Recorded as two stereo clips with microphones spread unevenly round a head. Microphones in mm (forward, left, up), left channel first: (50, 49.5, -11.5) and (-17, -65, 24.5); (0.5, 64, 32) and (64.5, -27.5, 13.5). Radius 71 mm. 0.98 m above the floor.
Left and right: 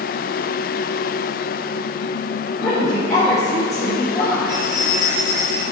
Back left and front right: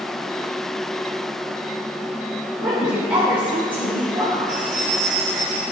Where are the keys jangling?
65° right, 3.5 m.